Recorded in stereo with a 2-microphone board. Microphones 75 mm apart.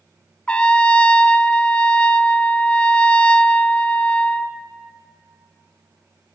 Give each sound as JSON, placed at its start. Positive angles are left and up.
{"t": 0.5, "sound": "a trumpet", "side_deg": 15, "distance_m": 0.6}